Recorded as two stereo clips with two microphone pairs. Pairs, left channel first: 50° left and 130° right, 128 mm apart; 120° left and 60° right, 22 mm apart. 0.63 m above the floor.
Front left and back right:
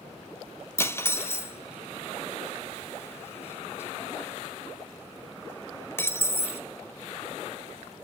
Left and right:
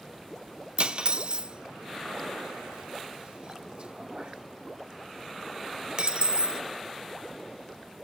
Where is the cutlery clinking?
20° right, 0.6 m.